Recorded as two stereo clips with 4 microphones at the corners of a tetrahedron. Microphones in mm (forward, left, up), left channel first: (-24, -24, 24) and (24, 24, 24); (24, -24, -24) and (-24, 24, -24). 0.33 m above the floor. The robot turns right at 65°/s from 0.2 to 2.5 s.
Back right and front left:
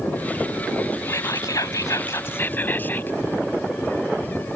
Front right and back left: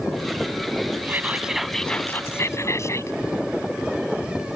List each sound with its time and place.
1.1 s whispering: 175° right; by 3.2 s 80° right